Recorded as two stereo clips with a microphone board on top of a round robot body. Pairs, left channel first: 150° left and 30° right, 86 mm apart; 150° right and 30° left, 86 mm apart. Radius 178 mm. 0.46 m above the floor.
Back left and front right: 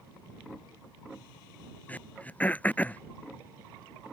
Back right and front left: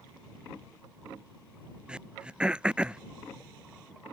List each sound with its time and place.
1.9 s throat clearing: 95° left